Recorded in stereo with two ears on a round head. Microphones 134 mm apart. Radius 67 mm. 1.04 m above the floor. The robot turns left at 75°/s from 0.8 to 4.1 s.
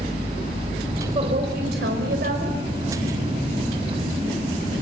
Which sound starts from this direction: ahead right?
A woman speaking, at 1.1 s.